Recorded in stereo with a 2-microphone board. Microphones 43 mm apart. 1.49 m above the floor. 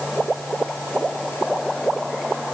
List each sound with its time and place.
Only background noise.